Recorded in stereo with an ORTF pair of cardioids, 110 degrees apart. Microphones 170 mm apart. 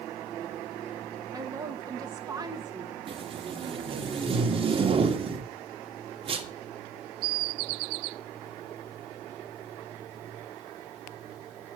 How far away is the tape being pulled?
About 1.9 m.